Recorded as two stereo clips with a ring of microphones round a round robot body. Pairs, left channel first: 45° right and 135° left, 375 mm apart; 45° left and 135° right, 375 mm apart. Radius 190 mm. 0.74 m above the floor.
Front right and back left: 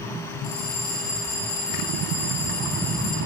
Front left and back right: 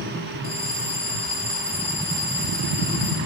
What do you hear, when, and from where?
0.4 s a bell: 20° right, 1.6 m